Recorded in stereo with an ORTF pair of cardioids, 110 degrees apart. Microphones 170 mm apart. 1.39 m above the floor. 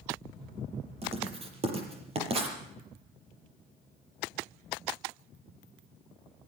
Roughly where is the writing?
Ahead right.